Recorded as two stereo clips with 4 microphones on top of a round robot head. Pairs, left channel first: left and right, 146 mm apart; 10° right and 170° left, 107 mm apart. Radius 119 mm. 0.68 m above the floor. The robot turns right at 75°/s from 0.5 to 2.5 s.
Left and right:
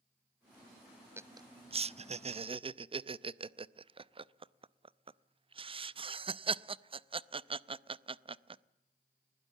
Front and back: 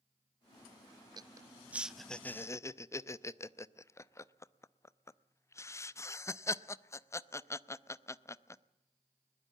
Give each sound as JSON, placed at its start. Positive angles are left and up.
{"t": 1.2, "sound": "laughter", "azimuth_deg": -160, "distance_m": 0.6}